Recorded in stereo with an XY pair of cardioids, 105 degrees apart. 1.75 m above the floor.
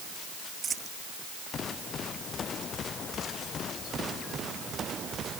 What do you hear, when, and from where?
0.6 s a dropped coin: 40° right